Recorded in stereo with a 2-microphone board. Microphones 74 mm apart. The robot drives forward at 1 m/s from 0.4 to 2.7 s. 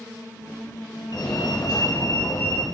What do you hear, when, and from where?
1.1 s a fire alarm: 65° left (ahead or behind), 3.5 m; by 2.6 s 50° left (ahead or behind), 4 m